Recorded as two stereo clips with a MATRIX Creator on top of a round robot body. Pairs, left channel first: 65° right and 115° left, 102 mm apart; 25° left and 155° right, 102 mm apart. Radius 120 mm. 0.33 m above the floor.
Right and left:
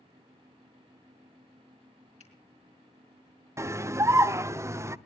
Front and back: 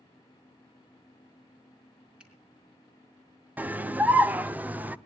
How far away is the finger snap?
About 4 m.